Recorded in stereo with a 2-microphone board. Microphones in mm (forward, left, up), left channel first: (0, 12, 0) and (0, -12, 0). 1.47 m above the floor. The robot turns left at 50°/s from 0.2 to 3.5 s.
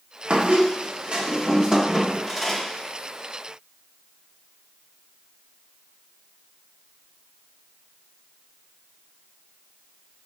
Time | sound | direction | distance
0.3 | a squeak | 80° right | 1.0 m